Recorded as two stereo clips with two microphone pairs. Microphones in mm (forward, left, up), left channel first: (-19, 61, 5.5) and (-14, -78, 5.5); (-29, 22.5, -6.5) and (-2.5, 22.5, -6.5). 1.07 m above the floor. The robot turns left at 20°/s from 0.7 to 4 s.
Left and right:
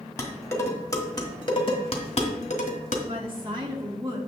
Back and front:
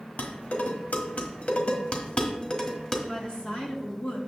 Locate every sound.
0.2 s dishes clattering: 160° left, 1.5 m; by 3.0 s 115° left, 1.5 m
3.1 s a woman speaking: 130° right, 2 m; by 4.2 s 150° right, 2 m